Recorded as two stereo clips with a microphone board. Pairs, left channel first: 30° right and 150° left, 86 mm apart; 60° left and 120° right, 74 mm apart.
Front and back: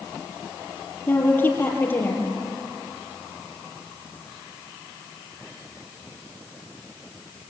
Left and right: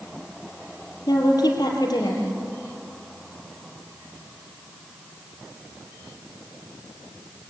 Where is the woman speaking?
35° left, 4.5 m.